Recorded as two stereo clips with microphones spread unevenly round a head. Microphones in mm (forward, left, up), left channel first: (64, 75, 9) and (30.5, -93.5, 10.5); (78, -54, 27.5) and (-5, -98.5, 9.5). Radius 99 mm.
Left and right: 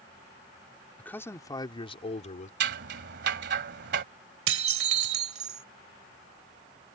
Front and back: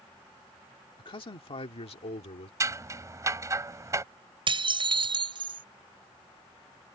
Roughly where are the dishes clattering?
Behind right.